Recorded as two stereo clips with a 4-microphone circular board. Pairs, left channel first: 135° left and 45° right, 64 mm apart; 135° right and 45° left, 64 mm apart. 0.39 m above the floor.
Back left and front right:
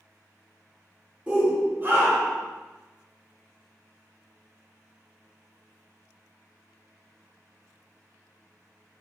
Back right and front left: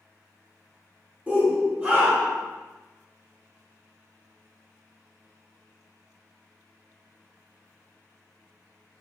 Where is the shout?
10° left, 0.9 m; by 2.5 s 5° right, 1.4 m.